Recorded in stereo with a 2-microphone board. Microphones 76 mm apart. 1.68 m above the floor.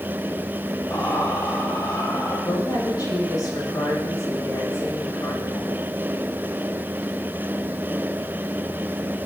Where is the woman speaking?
55° left (ahead or behind), 7 m.